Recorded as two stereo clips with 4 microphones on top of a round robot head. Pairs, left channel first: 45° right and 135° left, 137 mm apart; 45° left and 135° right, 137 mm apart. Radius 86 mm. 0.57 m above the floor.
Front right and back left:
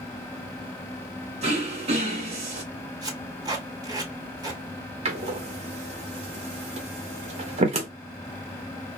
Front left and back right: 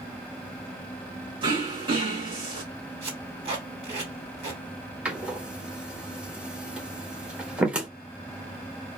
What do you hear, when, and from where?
1.4 s throat clearing: 175° left, 1.5 m
3.0 s tape being pulled: 175° right, 2 m
5.0 s a door slam: 145° left, 1.2 m